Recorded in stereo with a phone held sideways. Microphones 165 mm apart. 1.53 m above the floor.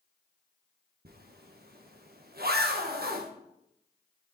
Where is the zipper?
70° right (ahead or behind), 1.1 m.